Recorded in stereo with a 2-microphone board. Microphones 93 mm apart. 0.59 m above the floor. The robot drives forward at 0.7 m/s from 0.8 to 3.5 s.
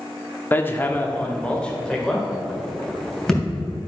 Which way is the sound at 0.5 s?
20° left (ahead or behind).